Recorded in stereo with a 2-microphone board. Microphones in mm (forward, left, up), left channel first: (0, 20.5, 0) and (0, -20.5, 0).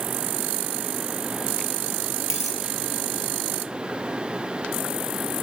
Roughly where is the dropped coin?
Centre.